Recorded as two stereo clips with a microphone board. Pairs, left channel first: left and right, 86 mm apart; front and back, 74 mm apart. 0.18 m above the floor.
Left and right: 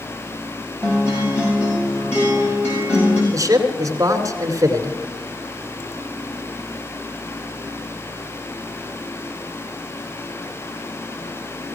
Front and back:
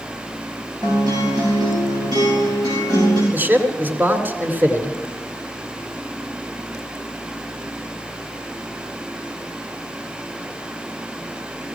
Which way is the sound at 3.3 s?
125° right.